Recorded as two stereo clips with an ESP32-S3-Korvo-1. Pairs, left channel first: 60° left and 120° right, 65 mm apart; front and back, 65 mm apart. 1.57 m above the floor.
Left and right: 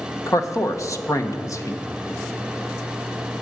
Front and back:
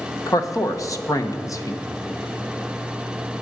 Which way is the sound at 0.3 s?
25° left.